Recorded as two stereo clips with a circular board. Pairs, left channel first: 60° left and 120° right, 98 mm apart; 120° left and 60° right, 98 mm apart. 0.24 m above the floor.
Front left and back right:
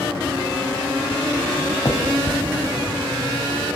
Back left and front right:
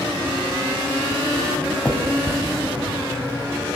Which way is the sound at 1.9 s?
55° left.